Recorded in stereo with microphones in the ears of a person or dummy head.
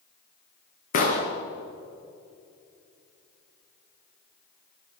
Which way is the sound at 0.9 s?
50° left (ahead or behind).